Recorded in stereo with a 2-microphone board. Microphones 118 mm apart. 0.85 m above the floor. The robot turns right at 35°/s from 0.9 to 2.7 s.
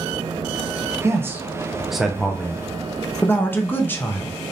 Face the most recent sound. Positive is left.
turn(degrees=15)  # may be behind; listen again after turning